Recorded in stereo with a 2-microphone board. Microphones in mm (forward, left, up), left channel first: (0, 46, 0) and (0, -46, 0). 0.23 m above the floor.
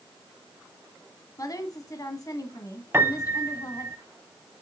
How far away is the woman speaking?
About 1.6 m.